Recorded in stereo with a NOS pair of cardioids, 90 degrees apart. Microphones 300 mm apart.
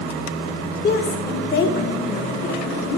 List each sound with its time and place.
0.8 s a woman speaking: 35° left, 2.5 m